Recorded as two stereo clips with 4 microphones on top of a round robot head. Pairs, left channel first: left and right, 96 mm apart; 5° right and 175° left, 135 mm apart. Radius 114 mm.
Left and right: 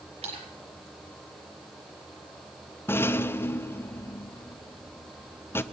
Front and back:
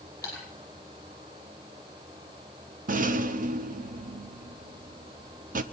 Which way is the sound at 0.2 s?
75° right.